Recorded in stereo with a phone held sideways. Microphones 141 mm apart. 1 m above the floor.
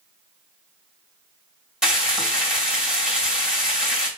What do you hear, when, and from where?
1.8 s frying: 5° right (ahead or behind), 2 m